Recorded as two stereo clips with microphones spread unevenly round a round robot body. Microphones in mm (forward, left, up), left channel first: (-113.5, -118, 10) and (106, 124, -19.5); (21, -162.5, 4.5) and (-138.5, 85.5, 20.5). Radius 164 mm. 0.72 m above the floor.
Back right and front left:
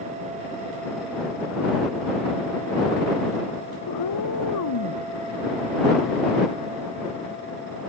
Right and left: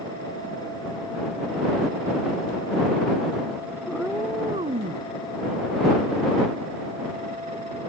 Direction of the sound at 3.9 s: 145° right.